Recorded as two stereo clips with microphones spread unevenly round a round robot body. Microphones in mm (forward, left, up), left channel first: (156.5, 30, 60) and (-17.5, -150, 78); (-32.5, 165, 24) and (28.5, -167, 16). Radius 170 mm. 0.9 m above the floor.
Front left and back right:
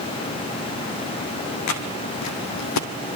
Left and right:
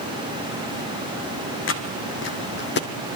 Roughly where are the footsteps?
Ahead left.